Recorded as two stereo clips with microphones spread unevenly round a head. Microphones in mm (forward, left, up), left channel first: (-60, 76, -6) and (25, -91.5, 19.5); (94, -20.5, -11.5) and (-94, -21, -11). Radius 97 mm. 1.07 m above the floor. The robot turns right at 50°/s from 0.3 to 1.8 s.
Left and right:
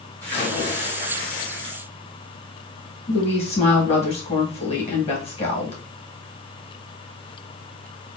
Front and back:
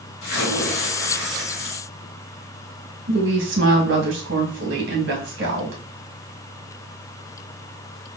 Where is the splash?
35° left, 1.7 m; by 1.8 s 110° left, 1.7 m.